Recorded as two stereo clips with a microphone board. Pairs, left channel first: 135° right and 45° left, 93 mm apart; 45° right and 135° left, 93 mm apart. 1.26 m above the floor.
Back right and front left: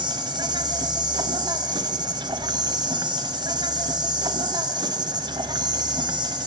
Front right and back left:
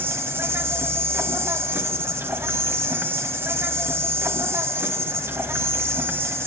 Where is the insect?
75° left, 1.8 m.